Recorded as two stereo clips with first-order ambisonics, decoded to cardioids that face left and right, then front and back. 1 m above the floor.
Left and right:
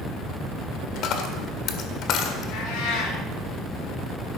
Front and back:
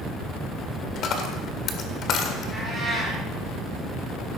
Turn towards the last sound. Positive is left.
turn(degrees=80)